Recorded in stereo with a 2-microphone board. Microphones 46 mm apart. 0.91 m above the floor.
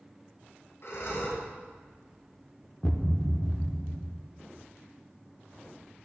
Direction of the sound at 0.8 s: 65° left (ahead or behind).